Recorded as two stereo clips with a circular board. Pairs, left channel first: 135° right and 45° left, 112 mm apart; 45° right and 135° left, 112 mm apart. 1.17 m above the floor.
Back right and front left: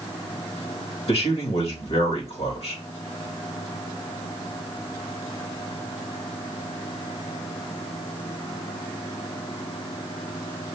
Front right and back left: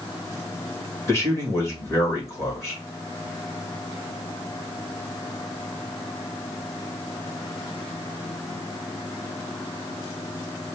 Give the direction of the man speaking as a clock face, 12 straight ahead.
4 o'clock.